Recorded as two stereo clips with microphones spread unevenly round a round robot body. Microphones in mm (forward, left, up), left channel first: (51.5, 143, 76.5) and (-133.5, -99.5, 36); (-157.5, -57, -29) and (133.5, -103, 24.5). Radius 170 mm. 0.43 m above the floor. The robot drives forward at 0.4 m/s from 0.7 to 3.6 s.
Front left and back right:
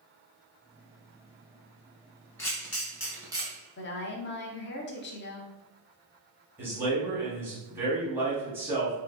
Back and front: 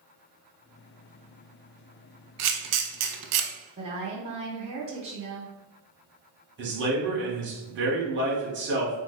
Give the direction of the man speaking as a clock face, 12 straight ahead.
2 o'clock.